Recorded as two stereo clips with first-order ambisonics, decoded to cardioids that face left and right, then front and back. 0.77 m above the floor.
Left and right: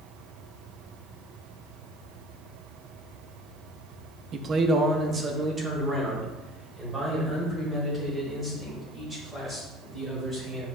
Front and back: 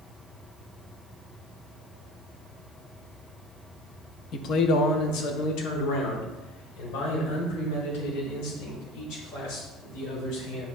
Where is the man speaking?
40° right, 0.7 m; by 10.7 s 10° right, 5.5 m.